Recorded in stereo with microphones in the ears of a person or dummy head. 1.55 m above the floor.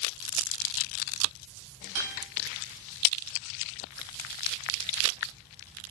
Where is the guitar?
70° right (ahead or behind), 5.5 m.